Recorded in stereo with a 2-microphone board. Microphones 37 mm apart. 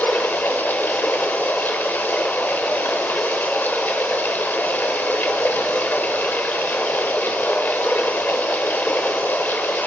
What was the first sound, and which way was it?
Running water, 65° left (ahead or behind).